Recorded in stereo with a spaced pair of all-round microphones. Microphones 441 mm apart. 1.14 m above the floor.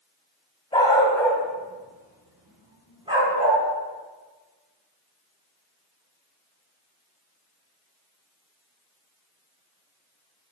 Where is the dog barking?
10° left (ahead or behind), 3.5 m; by 3.6 s 15° right (ahead or behind), 5 m.